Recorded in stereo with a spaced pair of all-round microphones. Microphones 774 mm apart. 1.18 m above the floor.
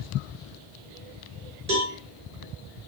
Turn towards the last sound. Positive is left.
turn(degrees=-60)  # may be behind; listen again after turning